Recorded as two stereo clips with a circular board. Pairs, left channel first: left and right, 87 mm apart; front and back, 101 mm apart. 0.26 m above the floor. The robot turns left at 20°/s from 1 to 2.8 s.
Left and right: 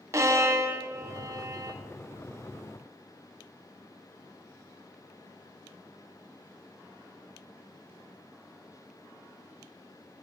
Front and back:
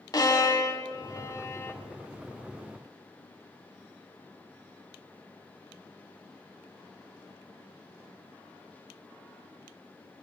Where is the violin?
40° right, 0.7 m; by 1.8 s 55° right, 0.7 m.